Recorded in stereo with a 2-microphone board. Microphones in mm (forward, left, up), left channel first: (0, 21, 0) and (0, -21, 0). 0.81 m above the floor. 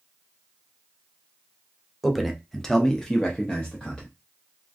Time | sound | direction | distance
2.0 | a man speaking | centre (ahead or behind) | 0.7 m